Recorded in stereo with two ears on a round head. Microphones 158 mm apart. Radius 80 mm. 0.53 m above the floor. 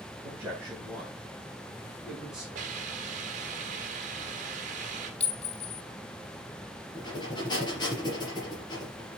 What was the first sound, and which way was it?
A man speaking, 15° right (ahead or behind).